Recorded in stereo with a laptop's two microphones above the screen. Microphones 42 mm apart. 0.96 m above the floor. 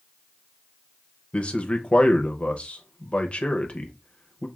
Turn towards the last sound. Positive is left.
turn(degrees=25)  # may be behind; listen again after turning